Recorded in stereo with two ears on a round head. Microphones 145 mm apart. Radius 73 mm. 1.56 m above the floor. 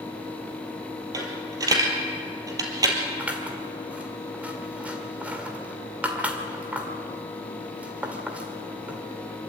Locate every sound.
1.1 s a dropped coin: 20° right (ahead or behind), 3.5 m
3.2 s scissors: 10° right (ahead or behind), 1.8 m